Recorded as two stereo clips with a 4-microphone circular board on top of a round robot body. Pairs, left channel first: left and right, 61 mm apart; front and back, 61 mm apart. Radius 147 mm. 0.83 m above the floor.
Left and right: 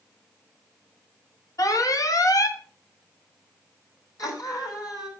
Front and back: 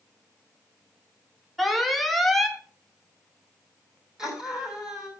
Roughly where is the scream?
Left.